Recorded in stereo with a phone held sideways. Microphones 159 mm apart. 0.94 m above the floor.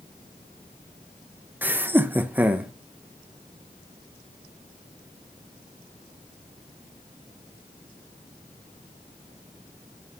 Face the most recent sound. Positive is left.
turn(degrees=-10)  # may be behind; listen again after turning